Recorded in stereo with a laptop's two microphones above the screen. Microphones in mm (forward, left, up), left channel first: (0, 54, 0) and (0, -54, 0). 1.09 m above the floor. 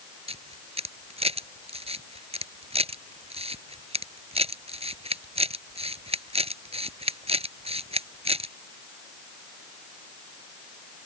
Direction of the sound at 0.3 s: 70° right (ahead or behind).